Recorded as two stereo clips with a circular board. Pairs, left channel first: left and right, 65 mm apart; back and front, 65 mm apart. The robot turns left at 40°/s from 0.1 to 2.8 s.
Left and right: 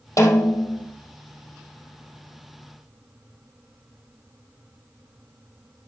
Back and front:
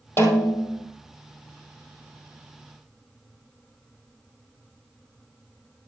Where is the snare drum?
125° left, 2.5 m; by 0.9 s 100° left, 2.5 m.